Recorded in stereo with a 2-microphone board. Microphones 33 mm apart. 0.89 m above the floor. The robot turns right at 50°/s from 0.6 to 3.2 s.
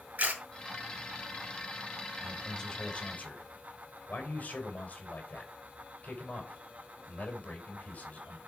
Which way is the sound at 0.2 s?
55° right (ahead or behind).